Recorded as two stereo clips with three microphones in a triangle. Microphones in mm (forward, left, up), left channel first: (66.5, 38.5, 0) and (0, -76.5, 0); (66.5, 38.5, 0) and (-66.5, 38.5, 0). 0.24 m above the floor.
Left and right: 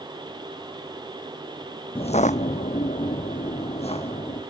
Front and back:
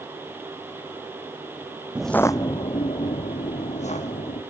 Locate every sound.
1.9 s footsteps: 100° left, 0.5 m; by 4.4 s 20° left, 2.5 m